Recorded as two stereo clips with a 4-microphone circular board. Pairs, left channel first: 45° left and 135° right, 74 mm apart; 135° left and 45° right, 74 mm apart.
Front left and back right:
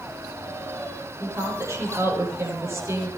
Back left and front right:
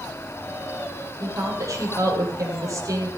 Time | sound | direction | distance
1.2 | a woman speaking | 90° right | 10 m